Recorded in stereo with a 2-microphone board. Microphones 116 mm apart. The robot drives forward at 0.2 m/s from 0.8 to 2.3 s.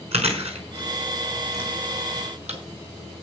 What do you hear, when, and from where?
0.1 s chewing: 65° right (ahead or behind), 4.5 m; by 2.6 s 70° right (ahead or behind), 4.5 m